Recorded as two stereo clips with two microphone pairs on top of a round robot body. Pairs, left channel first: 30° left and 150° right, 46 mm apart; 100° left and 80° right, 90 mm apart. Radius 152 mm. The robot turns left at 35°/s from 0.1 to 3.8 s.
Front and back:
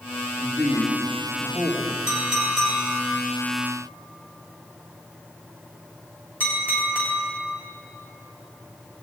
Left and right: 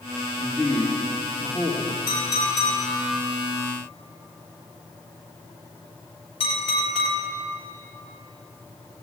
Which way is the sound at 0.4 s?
170° right.